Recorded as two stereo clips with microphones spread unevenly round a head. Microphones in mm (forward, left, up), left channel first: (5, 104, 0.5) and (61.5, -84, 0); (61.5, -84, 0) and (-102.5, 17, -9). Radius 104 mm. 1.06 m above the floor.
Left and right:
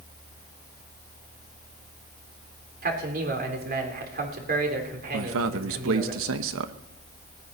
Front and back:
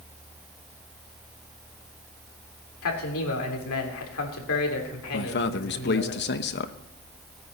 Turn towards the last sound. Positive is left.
turn(degrees=-65)